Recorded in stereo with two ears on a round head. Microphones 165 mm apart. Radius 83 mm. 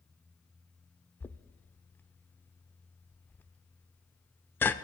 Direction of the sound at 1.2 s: 10° left (ahead or behind).